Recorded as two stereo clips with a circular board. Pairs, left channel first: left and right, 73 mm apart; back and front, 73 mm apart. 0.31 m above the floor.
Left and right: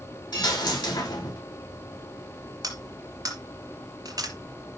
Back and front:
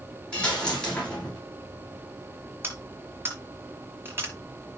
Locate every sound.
0.3 s a dropped coin: 105° left, 8 m
2.6 s cutlery clinking: 60° right, 3.5 m